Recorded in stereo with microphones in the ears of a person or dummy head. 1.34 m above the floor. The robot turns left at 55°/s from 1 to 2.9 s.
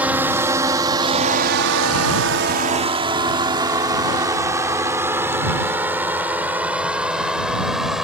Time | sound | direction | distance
0.0 | a drone | 5° right (ahead or behind) | ?